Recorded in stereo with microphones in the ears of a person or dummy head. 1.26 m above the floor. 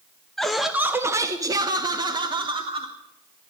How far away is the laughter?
About 0.5 m.